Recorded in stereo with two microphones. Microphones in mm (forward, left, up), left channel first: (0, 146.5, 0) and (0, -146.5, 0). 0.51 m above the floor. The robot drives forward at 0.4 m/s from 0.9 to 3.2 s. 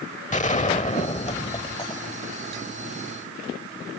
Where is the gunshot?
25° left (ahead or behind); by 2.6 s 15° left (ahead or behind).